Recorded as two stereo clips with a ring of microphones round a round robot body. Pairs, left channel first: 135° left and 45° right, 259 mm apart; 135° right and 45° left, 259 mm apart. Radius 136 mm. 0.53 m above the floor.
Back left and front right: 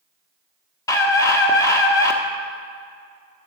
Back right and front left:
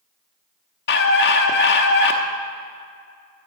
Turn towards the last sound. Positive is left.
turn(degrees=-155)